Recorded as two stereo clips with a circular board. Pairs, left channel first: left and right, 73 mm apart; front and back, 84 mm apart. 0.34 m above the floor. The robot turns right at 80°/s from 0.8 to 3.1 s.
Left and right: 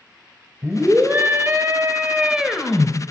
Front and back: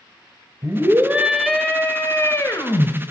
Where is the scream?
145° right, 1.5 m; by 2.9 s 25° left, 1.5 m.